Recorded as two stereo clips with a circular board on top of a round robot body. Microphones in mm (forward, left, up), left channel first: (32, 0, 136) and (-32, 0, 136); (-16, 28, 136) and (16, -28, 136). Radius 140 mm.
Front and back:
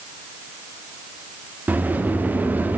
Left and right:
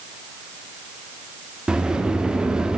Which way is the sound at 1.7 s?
135° right.